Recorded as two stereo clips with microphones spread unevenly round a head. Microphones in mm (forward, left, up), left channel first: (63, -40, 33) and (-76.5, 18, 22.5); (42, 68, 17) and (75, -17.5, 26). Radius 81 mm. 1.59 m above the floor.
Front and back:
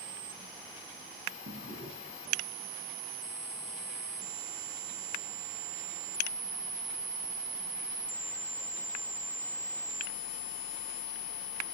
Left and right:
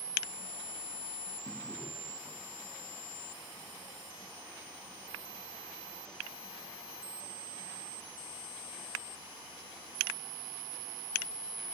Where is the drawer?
160° left, 5 m.